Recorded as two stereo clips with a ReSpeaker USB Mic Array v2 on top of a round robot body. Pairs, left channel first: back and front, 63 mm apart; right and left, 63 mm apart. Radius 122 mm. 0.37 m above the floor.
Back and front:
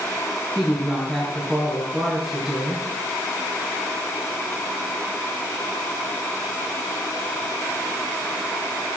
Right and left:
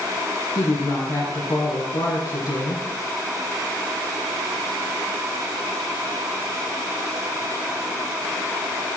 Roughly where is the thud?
No thud in this recording.